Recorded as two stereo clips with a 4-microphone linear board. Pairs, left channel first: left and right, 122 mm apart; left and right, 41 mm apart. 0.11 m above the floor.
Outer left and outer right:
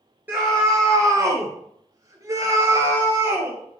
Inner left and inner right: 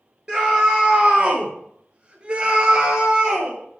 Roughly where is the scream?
Centre.